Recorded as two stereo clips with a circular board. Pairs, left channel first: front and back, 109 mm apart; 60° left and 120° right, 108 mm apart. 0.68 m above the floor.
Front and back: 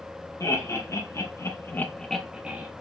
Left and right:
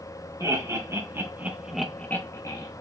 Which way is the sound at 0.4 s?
60° right.